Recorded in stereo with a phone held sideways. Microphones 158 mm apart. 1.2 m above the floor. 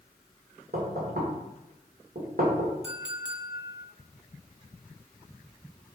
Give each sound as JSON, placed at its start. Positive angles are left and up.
{"t": 0.7, "sound": "knocking", "side_deg": -75, "distance_m": 2.5}
{"t": 2.8, "sound": "a clink", "side_deg": -10, "distance_m": 1.7}